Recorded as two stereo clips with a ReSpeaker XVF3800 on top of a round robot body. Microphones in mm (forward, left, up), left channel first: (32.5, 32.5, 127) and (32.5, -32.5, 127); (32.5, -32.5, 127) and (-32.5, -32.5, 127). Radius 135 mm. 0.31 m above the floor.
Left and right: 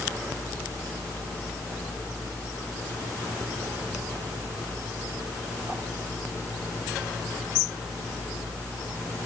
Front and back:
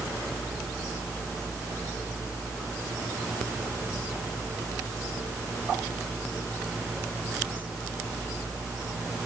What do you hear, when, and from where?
Only background noise.